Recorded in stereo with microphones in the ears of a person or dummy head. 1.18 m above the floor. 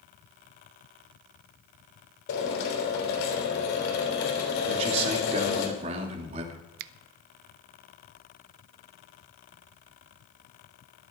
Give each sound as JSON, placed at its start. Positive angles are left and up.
{"t": 2.3, "sound": "a drill", "side_deg": 65, "distance_m": 3.5}
{"t": 4.7, "sound": "a man speaking", "side_deg": -40, "distance_m": 3.0}
{"t": 6.8, "sound": "a finger snap", "side_deg": -55, "distance_m": 0.6}